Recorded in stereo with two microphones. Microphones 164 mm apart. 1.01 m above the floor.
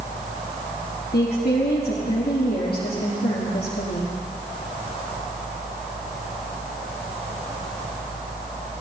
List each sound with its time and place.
1.1 s a woman speaking: 75° left (ahead or behind), 1.6 m